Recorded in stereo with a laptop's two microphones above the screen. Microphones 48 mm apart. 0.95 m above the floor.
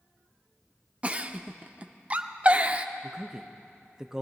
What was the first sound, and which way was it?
A giggle, 30° right (ahead or behind).